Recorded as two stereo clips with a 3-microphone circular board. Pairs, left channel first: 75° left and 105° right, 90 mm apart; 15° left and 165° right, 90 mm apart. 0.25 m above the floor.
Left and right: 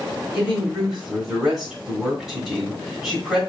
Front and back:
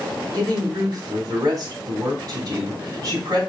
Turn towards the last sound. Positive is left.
turn(degrees=170)